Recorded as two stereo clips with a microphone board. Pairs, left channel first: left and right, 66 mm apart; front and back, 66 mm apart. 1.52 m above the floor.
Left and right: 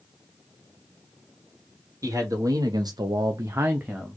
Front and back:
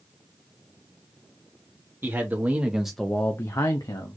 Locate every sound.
2.0 s a man speaking: 125° right, 1.4 m; by 4.2 s 5° right, 1.0 m